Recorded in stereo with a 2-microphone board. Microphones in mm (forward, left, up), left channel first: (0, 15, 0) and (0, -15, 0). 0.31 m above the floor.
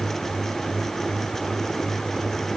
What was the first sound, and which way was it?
Only background noise.